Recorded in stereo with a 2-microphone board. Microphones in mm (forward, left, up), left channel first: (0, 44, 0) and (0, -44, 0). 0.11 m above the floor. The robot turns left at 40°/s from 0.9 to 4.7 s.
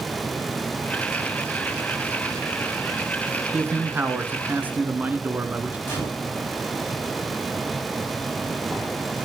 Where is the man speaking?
20° right (ahead or behind), 1.3 m.